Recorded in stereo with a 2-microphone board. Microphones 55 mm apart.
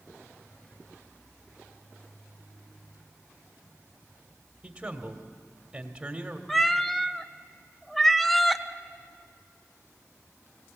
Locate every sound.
4.6 s a man speaking: 15° right (ahead or behind), 1.6 m
6.5 s a cat meowing: centre (ahead or behind), 0.6 m